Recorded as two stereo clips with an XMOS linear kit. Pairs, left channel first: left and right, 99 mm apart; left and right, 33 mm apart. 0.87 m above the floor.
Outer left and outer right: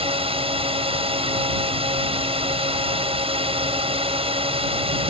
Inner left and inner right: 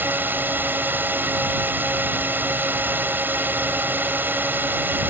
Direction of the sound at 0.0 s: 75° right (ahead or behind).